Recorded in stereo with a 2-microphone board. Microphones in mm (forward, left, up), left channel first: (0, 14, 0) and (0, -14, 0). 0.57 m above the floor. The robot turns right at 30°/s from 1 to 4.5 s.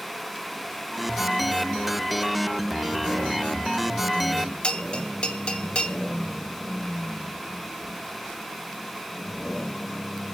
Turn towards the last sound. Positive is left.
turn(degrees=40)  # may be behind; listen again after turning